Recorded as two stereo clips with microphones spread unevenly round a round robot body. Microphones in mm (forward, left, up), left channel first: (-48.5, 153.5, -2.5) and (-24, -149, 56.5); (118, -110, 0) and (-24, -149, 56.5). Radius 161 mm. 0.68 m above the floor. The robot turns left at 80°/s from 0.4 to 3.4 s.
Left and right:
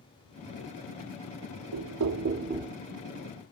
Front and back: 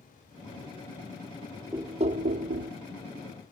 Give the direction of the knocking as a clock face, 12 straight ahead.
3 o'clock.